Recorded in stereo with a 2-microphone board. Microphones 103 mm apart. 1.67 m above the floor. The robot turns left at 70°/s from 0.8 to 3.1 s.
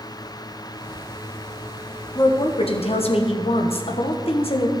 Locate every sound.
2.1 s a woman speaking: 145° left, 1.2 m; by 4.7 s 75° left, 1.2 m